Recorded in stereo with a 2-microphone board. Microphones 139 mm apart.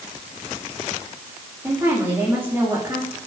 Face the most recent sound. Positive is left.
turn(degrees=-15)  # may be behind; listen again after turning